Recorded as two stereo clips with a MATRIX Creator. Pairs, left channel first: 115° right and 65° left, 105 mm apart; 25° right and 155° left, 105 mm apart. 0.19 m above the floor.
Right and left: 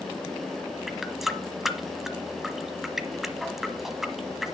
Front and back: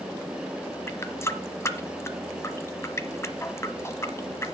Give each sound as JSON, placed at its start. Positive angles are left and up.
{"t": 0.9, "sound": "a running tap", "azimuth_deg": -15, "distance_m": 1.0}